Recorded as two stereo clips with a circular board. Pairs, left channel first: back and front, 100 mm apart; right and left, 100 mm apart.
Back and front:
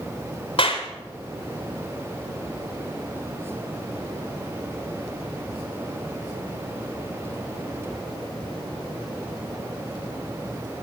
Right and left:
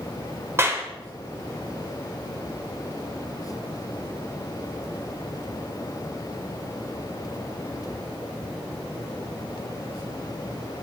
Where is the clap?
155° left, 3 m.